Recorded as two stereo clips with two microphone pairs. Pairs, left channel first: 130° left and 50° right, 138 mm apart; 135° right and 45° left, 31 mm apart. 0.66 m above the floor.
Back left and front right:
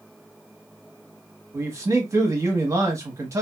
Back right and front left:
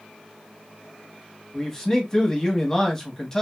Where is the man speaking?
85° right, 0.9 m.